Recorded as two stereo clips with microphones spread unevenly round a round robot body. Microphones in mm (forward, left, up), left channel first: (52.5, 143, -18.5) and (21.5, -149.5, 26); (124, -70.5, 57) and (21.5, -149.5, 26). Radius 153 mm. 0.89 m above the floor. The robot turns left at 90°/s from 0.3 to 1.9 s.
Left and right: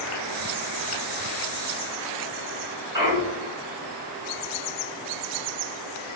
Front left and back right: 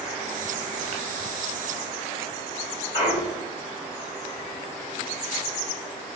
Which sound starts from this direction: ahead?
A clunk, at 2.9 s.